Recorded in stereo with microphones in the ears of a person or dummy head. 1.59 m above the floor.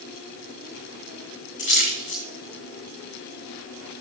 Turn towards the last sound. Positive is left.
turn(degrees=40)  # may be behind; listen again after turning